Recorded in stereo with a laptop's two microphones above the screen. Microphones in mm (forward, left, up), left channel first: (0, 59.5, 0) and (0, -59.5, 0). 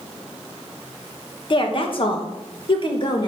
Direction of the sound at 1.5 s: 45° left (ahead or behind).